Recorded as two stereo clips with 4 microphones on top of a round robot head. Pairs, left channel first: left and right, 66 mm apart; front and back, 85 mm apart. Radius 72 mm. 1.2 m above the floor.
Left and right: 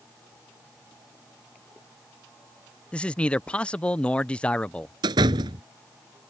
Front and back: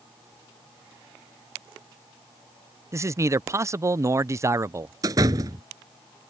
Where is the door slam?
120° right.